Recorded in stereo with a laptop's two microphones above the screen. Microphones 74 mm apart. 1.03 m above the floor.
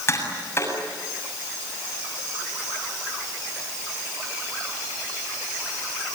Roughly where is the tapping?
Left.